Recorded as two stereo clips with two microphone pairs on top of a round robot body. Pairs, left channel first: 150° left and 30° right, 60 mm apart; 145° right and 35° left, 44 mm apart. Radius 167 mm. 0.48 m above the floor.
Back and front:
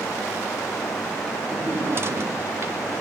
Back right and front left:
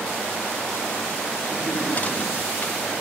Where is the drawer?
85° right, 1.6 m.